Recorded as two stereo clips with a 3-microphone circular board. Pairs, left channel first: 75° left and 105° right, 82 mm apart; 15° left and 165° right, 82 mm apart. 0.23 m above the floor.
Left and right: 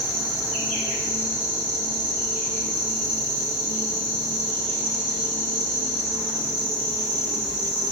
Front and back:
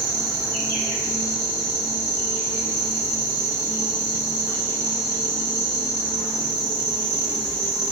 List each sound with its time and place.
0.0 s an insect: straight behind, 1.8 m